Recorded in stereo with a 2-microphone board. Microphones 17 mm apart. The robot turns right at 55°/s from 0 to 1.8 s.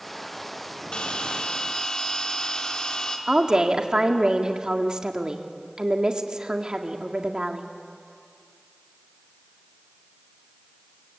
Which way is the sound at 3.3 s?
50° right (ahead or behind).